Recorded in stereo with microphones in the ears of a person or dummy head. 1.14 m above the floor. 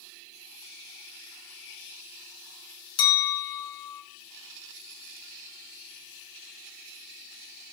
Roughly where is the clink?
Left.